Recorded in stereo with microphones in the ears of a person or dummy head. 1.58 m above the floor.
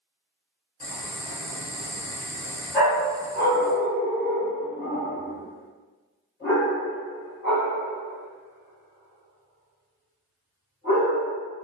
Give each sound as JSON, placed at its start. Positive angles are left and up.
{"t": 0.8, "sound": "boiling", "side_deg": 45, "distance_m": 1.1}
{"t": 2.7, "sound": "a dog barking", "side_deg": 50, "distance_m": 1.9}